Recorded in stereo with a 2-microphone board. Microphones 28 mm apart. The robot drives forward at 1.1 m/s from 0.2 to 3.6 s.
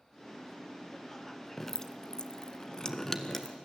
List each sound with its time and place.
1.6 s dripping: 15° left (ahead or behind), 1.0 m; by 3.6 s 10° left (ahead or behind), 1.5 m